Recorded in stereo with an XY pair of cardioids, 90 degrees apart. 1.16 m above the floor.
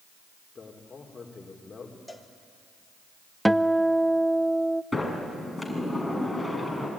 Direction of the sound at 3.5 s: 5° right.